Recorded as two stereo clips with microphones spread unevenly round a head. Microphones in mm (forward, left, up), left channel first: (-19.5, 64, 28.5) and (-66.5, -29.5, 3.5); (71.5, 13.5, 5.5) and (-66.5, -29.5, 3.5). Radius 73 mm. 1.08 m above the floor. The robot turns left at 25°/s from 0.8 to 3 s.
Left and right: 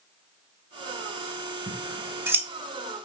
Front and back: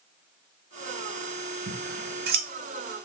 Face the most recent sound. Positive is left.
turn(degrees=160)